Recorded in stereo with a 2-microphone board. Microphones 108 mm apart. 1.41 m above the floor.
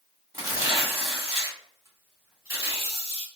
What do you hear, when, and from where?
0.3 s tearing paper: 25° right (ahead or behind), 2.0 m